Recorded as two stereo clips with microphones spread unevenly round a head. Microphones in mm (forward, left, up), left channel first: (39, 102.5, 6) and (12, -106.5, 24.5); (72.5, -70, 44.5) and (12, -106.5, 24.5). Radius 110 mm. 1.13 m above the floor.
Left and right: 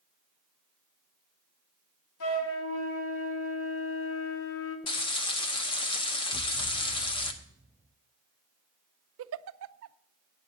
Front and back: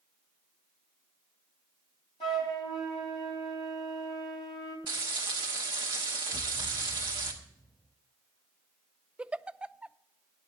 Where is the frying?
150° left, 0.9 m.